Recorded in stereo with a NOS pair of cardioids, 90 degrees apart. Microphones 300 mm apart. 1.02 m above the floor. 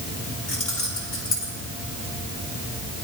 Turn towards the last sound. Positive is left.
turn(degrees=50)